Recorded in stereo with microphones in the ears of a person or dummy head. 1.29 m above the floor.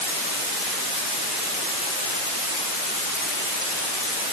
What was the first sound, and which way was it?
Only background noise.